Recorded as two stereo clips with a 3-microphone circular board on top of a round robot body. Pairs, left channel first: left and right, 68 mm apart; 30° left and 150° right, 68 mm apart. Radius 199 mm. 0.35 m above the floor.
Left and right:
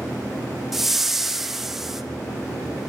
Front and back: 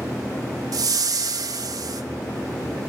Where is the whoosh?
175° right, 0.7 m.